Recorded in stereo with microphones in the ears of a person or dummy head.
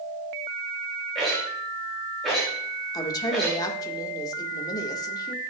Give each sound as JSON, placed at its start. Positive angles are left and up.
{"t": 1.1, "sound": "a rattle", "side_deg": 5, "distance_m": 4.5}
{"t": 2.9, "sound": "a woman speaking", "side_deg": 20, "distance_m": 1.6}